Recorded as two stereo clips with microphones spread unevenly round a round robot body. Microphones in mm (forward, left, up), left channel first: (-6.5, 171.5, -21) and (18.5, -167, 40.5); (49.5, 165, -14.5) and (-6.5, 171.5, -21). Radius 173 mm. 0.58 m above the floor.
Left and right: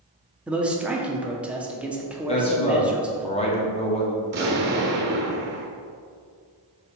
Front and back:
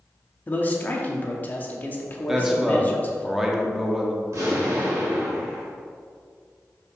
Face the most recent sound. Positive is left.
turn(degrees=-145)